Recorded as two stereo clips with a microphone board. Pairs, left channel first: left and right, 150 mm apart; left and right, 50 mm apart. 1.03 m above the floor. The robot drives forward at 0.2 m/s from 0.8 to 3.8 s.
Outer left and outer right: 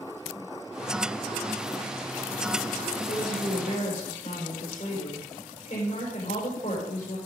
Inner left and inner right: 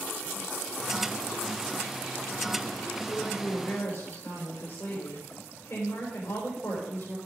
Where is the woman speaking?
55° left (ahead or behind), 4 m.